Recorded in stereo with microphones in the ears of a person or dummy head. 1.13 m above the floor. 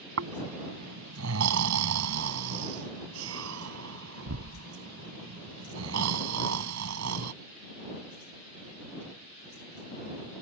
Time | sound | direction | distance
0.2 | snoring | 75° right (ahead or behind) | ?